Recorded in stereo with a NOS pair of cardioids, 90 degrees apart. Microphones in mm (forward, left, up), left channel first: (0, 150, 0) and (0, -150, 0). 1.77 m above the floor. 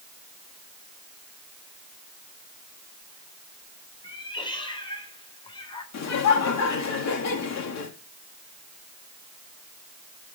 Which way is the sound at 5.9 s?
55° left.